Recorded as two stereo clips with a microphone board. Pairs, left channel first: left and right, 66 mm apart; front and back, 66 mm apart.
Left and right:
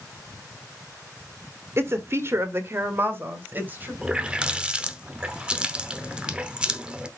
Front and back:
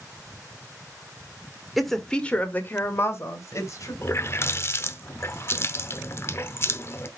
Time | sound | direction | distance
1.8 | a woman speaking | 90° right | 1.4 m
4.0 | a running tap | 25° right | 0.8 m